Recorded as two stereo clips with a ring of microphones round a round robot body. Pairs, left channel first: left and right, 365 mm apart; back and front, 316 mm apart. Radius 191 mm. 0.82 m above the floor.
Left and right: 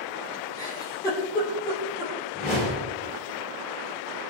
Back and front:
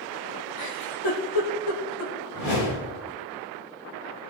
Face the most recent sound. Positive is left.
turn(degrees=160)